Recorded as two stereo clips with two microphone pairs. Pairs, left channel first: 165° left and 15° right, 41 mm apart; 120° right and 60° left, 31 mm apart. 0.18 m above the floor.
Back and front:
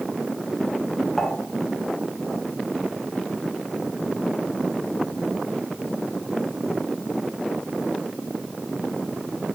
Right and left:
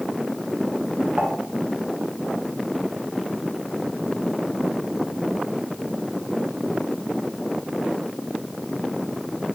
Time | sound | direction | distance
1.2 | dishes clattering | 85° left | 1.3 m